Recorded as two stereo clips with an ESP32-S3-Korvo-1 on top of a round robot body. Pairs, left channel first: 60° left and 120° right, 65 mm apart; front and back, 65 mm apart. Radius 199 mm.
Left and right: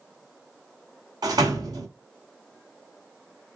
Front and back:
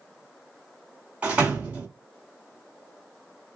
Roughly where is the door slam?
Right.